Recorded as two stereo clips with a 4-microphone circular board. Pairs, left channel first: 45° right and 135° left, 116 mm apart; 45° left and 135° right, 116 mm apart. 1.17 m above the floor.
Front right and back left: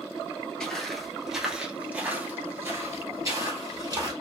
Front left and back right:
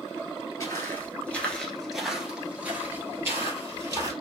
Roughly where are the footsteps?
Ahead left.